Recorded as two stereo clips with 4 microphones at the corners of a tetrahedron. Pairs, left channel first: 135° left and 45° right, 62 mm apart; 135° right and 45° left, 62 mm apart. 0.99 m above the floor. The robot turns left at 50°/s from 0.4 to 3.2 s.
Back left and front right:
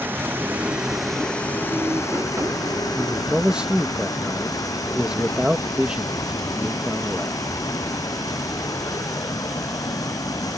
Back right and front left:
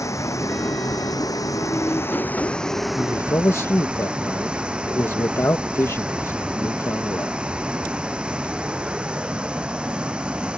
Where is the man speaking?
105° right; by 7.4 s 115° right.